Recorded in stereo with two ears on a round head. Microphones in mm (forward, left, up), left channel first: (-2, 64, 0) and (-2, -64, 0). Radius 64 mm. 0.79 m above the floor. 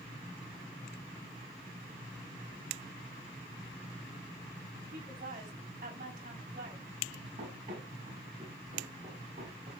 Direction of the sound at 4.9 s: 55° right (ahead or behind).